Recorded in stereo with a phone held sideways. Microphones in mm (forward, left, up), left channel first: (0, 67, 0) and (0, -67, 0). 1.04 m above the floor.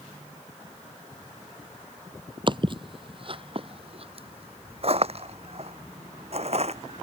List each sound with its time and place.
2.5 s footsteps: 35° right (ahead or behind); by 7.0 s 50° right (ahead or behind)